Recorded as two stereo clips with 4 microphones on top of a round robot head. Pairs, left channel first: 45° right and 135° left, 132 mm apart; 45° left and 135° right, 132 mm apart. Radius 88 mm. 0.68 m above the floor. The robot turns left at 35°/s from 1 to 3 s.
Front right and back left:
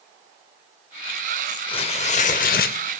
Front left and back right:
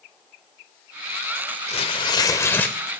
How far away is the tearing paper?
About 0.5 m.